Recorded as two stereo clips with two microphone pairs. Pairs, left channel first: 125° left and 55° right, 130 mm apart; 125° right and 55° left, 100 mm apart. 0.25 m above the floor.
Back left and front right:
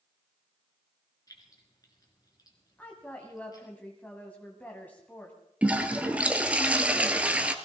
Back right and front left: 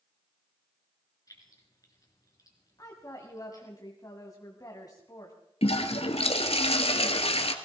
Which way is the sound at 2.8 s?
160° right.